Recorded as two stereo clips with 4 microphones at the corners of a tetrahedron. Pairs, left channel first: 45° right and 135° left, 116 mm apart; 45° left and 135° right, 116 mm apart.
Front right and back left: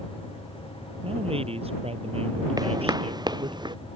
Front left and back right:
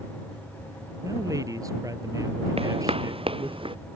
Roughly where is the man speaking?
Behind.